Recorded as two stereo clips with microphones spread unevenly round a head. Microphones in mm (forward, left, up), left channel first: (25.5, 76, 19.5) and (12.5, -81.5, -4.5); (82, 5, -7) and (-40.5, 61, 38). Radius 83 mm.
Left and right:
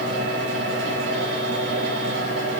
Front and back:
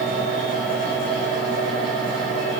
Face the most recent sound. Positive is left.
turn(degrees=-105)